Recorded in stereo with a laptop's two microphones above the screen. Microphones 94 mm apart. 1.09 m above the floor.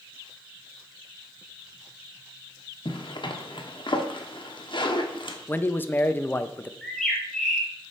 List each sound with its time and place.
2.9 s a zipper: 60° left (ahead or behind), 0.9 m
5.5 s a man speaking: 20° left (ahead or behind), 0.6 m
6.8 s a bird: 5° left (ahead or behind), 1.8 m